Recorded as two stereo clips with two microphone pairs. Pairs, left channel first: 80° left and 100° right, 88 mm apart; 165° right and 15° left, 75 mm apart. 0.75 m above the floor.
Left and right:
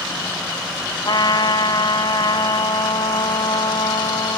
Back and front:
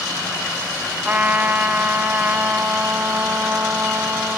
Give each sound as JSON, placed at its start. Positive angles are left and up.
{"t": 1.0, "sound": "a trumpet", "azimuth_deg": 75, "distance_m": 0.9}